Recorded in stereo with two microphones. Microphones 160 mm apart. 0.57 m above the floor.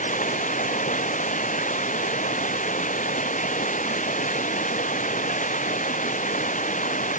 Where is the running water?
55° left (ahead or behind).